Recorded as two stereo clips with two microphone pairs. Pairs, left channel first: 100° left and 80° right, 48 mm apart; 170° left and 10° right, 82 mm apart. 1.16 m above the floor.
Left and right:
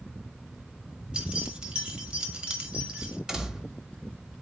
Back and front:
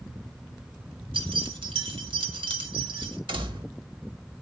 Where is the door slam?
5° right, 1.3 m.